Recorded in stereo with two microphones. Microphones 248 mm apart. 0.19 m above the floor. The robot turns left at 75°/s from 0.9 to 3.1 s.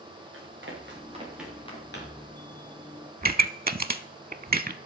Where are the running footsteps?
55° right (ahead or behind), 6 m; by 2.3 s 75° left (ahead or behind), 5.5 m.